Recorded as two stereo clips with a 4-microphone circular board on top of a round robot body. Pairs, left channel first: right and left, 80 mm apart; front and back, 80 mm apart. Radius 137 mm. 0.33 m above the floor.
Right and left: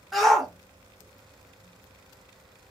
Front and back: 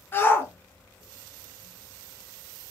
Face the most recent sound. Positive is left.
turn(degrees=-5)